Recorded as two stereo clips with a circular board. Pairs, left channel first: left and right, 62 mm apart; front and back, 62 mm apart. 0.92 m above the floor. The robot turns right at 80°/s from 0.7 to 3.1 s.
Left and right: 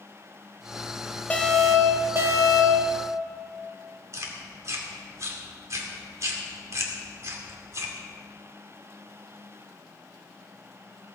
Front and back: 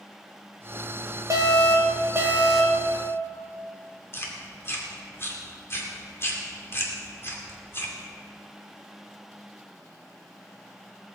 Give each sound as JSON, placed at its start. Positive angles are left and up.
{"t": 1.3, "sound": "an alarm", "azimuth_deg": 155, "distance_m": 2.0}
{"t": 4.1, "sound": "chewing", "azimuth_deg": -50, "distance_m": 2.5}